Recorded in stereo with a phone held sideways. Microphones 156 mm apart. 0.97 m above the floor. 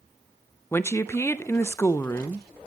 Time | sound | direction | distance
0.7 | a woman speaking | 15° left (ahead or behind) | 0.5 m